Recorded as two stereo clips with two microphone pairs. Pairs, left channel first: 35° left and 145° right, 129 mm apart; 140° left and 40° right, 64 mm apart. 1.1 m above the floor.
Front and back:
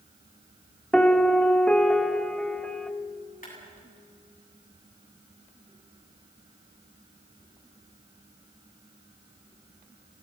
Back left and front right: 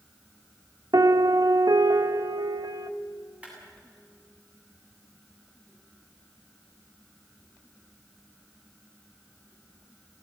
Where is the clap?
30° left, 8 m.